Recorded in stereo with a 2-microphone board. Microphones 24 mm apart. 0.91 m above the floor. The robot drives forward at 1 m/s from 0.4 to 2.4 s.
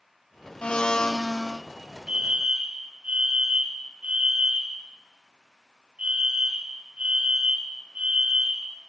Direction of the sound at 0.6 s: 55° left (ahead or behind).